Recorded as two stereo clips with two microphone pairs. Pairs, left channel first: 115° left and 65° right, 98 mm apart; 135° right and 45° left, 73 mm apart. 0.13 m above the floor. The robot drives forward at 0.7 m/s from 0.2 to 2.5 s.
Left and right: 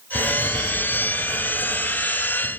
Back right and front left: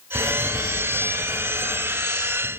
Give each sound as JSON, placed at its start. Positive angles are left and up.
{"t": 0.1, "sound": "writing", "azimuth_deg": 85, "distance_m": 2.0}